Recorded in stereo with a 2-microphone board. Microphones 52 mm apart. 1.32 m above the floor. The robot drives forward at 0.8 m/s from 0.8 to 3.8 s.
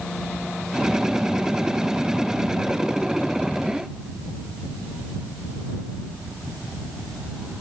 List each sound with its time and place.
Only background noise.